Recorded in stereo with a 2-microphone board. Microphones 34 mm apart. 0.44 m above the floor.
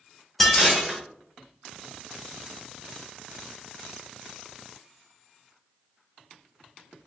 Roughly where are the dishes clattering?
Centre.